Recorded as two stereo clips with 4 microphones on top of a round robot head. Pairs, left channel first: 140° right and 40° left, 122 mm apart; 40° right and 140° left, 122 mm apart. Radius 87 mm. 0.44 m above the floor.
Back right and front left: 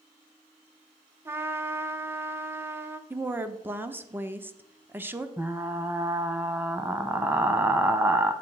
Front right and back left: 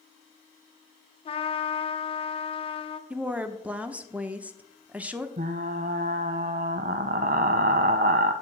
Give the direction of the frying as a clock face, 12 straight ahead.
8 o'clock.